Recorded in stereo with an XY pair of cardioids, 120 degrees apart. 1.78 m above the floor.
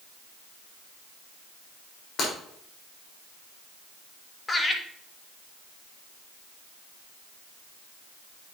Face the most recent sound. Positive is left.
turn(degrees=20)